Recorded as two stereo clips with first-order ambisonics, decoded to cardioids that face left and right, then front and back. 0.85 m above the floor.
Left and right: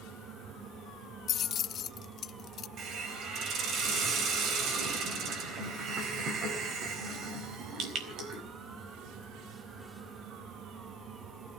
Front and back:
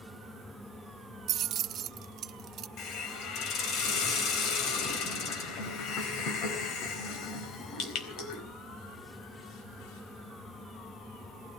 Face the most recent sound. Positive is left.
turn(degrees=-40)